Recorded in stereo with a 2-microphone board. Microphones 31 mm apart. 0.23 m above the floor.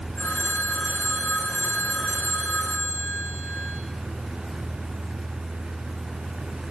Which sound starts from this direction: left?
A phone ringing, at 0.2 s.